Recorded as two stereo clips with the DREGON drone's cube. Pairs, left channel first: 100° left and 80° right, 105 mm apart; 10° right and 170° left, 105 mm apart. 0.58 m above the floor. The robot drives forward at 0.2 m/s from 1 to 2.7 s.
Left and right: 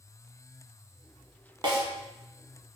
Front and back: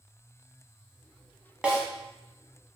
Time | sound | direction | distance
1.6 | a snare drum | 110° right | 0.7 m